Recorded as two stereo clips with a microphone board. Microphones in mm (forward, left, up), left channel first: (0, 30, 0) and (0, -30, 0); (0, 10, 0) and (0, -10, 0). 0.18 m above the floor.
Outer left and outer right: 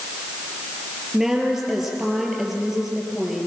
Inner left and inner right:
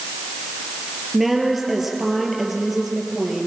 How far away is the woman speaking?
About 5 m.